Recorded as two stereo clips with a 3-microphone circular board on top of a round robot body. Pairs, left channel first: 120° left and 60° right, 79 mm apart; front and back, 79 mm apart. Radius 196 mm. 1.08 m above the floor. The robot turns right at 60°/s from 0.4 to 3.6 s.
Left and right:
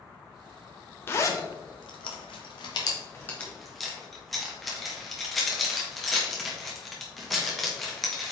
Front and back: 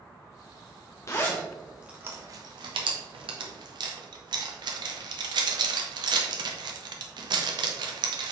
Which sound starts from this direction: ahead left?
A zipper, at 1.1 s.